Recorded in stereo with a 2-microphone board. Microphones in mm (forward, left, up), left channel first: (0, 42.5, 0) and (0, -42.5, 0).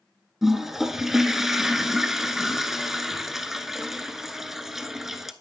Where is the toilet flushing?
5° right (ahead or behind), 0.5 m.